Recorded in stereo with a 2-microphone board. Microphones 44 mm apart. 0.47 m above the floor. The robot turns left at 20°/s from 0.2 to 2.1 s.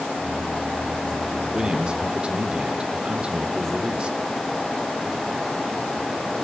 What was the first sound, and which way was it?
A man speaking, 20° right (ahead or behind).